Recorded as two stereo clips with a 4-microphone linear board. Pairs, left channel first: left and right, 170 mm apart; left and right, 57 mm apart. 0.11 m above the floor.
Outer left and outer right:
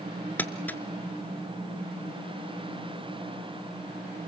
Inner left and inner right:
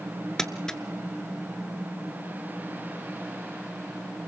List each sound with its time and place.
0.4 s crumpling: 10° left (ahead or behind), 1.0 m